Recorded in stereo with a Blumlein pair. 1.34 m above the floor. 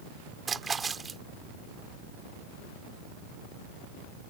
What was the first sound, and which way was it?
A splash, 15° right.